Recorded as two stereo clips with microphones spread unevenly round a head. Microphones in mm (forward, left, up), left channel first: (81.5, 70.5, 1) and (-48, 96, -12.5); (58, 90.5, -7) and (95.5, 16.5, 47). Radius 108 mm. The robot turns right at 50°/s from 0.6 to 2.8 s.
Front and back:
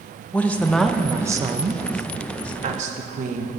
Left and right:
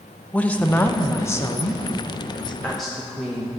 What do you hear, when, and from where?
0.3 s a woman speaking: 70° left, 0.7 m; by 3.5 s straight behind, 0.7 m